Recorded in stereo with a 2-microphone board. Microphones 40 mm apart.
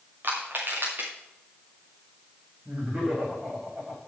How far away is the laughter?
About 7.5 m.